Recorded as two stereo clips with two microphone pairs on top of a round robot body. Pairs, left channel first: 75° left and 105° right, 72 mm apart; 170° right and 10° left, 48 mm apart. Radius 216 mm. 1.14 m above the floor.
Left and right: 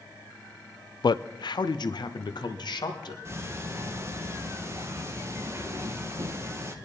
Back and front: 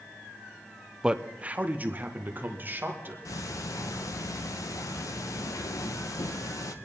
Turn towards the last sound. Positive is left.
turn(degrees=-160)